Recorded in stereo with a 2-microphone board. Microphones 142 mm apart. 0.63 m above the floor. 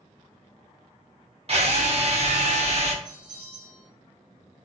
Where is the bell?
35° right (ahead or behind), 1.2 m.